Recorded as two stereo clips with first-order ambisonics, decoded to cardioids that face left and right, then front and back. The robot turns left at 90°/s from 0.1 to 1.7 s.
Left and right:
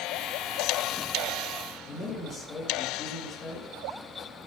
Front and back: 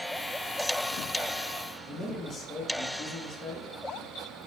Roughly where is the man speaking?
Ahead left.